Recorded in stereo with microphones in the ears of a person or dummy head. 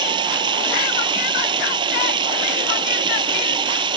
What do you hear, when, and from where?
0.0 s running water: 25° right (ahead or behind)